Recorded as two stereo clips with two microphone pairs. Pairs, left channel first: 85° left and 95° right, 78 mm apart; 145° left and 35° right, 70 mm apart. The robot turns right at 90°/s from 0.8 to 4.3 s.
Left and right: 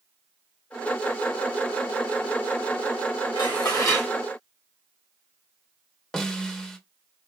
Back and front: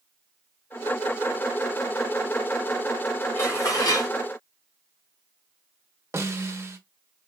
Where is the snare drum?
Straight ahead, 0.7 m.